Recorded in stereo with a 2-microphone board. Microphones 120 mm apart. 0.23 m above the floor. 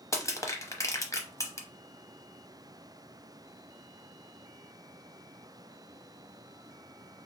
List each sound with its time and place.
0.1 s crushing: 25° left (ahead or behind), 0.7 m